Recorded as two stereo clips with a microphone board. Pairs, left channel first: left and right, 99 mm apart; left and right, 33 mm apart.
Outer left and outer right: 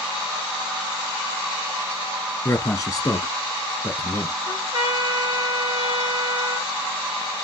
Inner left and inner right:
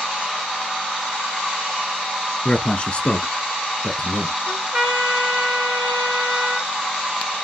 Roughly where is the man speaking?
Left.